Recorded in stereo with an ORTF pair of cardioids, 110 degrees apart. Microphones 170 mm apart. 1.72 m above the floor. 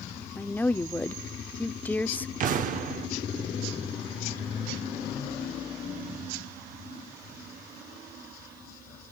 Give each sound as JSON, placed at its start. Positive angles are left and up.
{"t": 0.4, "sound": "a woman speaking", "azimuth_deg": 10, "distance_m": 0.6}
{"t": 2.4, "sound": "an explosion", "azimuth_deg": -55, "distance_m": 1.0}